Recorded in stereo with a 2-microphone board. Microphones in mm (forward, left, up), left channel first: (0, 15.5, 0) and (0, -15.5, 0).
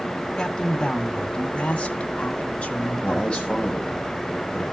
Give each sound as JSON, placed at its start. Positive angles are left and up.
{"t": 0.4, "sound": "a man speaking", "side_deg": 25, "distance_m": 1.5}
{"t": 3.0, "sound": "a man speaking", "side_deg": 30, "distance_m": 9.5}